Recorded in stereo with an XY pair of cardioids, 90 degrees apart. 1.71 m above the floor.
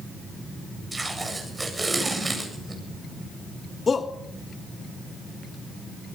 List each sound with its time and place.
0.9 s tape being pulled: 20° right, 8.5 m
3.9 s a shout: 40° left, 2.5 m